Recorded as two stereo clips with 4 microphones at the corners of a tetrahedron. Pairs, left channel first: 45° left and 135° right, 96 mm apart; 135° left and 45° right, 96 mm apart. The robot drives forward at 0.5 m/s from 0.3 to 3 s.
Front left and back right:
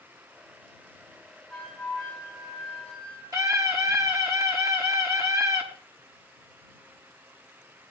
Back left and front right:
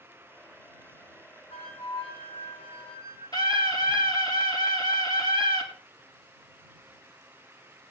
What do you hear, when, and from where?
1.5 s a flute: 130° left, 7.5 m; by 3.2 s 135° left, 8 m
3.3 s a scream: 175° left, 4 m